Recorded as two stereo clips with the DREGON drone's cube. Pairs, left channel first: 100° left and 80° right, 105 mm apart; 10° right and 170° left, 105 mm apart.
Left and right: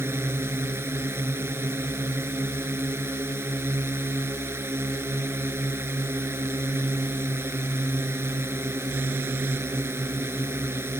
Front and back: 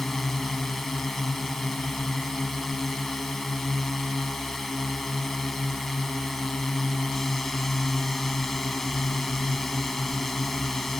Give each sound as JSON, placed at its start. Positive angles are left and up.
{"t": 0.0, "sound": "a drone", "azimuth_deg": -95}